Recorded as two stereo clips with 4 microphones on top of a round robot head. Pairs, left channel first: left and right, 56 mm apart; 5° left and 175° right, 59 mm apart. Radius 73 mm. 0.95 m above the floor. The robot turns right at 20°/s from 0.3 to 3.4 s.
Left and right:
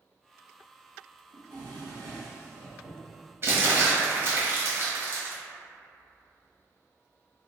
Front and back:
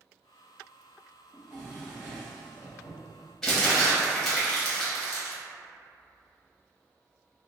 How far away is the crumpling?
About 1.1 m.